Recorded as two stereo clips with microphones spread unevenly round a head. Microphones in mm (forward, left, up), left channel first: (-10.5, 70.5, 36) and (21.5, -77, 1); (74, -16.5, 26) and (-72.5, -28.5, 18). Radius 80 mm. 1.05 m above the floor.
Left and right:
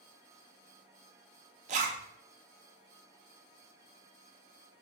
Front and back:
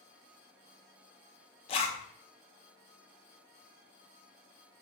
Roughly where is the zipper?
Ahead right.